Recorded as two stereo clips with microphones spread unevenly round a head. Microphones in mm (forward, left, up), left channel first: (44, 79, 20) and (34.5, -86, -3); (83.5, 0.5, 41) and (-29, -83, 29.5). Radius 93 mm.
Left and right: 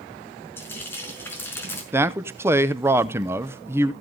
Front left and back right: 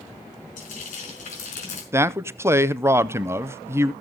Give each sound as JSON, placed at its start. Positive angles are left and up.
{"t": 0.6, "sound": "frying", "azimuth_deg": 10, "distance_m": 5.0}
{"t": 1.9, "sound": "a man speaking", "azimuth_deg": -120, "distance_m": 0.7}